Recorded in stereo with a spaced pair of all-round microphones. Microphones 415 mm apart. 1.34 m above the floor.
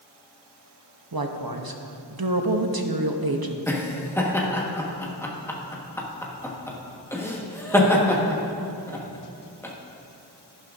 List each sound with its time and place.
1.1 s a woman speaking: 60° right (ahead or behind), 0.8 m
3.7 s laughter: 5° left (ahead or behind), 1.3 m